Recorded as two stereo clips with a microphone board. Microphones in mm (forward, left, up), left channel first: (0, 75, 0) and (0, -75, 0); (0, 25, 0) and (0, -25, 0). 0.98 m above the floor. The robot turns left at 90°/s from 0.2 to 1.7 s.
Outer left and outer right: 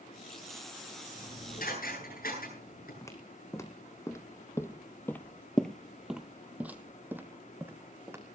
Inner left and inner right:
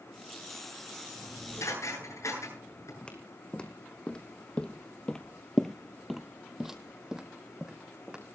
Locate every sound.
1.1 s dishes clattering: 30° left (ahead or behind), 9.5 m; by 2.9 s 75° left (ahead or behind), 9.5 m
3.0 s footsteps: 20° left (ahead or behind), 2.5 m; by 8.2 s 15° right (ahead or behind), 3 m